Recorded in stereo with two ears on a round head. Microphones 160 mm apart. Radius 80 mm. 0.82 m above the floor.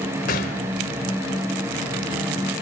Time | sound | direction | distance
0.3 | a gunshot | 55° left (ahead or behind) | 3 m